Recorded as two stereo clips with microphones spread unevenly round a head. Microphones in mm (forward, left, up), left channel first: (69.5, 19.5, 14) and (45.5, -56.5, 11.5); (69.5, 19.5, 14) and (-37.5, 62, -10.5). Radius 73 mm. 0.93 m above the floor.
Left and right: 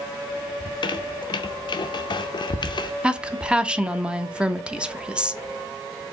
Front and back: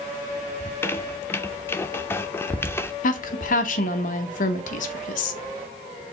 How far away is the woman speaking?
About 0.7 m.